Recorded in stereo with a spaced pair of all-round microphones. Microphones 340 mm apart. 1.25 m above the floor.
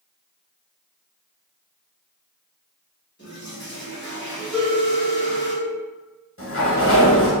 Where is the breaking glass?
No breaking glass in this recording.